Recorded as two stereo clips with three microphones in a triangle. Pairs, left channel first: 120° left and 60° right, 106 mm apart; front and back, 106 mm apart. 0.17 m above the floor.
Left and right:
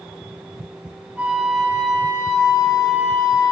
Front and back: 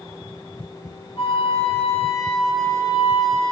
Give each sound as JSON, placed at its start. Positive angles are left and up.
{"t": 1.2, "sound": "a flute", "azimuth_deg": 15, "distance_m": 2.5}